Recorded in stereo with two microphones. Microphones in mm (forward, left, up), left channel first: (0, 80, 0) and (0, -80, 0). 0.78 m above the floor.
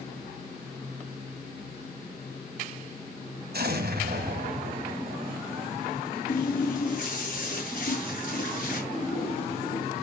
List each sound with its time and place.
3.5 s an explosion: 75° right (ahead or behind), 1.8 m
6.3 s a running tap: 55° left (ahead or behind), 6 m
8.9 s a splash: 40° left (ahead or behind), 7.5 m